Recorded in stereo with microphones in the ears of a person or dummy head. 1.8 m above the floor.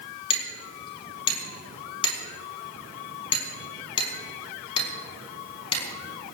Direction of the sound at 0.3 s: 35° left (ahead or behind).